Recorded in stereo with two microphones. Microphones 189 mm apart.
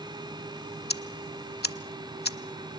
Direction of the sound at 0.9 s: 60° left (ahead or behind).